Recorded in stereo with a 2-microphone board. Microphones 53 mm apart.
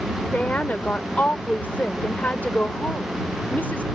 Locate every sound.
0.3 s a woman speaking: 35° left (ahead or behind)